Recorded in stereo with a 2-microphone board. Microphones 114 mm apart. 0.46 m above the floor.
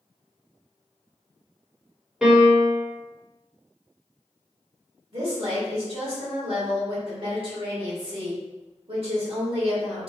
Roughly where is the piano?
Centre.